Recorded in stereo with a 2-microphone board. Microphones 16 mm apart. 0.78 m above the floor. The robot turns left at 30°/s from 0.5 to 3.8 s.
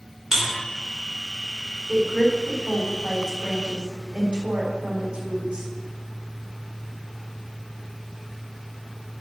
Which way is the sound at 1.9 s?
25° right (ahead or behind).